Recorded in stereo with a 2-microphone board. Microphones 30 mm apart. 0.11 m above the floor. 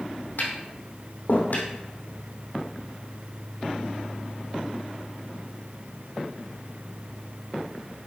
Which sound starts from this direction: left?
Tapping, at 0.4 s.